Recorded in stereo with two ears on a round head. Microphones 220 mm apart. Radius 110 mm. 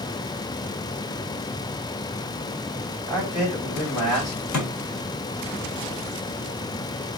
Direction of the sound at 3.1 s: 75° left (ahead or behind).